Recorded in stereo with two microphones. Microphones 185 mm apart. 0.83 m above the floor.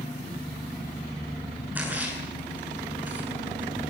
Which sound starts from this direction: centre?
A splash, at 1.8 s.